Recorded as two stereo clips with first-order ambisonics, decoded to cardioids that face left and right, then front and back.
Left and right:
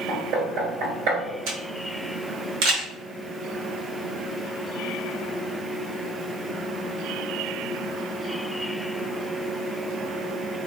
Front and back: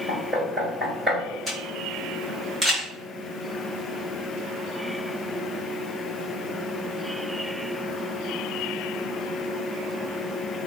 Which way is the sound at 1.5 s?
85° right.